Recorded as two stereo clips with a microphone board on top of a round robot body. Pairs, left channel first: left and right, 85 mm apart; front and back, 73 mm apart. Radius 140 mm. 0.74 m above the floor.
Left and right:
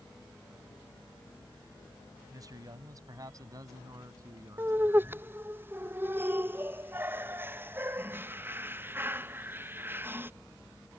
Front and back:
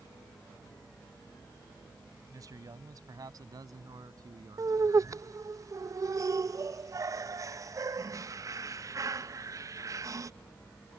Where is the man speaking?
140° right; by 5.3 s 145° right.